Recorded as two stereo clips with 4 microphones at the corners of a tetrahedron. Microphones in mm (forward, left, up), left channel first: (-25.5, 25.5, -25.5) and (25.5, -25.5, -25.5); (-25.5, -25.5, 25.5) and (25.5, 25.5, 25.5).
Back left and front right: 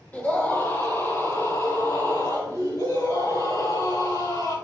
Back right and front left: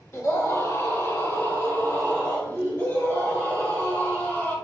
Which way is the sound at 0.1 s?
165° right.